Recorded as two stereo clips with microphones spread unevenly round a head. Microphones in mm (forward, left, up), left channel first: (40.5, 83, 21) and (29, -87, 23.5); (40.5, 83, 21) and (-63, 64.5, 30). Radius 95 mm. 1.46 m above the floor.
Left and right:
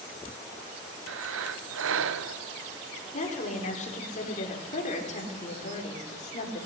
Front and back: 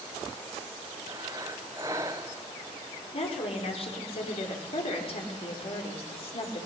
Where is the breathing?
95° right, 0.7 m.